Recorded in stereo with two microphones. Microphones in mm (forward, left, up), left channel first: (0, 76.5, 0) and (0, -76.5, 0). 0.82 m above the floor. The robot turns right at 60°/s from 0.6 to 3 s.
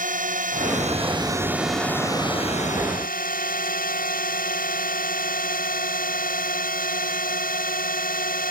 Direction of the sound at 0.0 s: 70° right.